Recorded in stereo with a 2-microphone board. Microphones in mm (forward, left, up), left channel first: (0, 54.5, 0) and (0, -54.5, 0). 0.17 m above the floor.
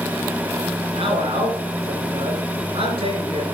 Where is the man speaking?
60° right (ahead or behind), 3 m.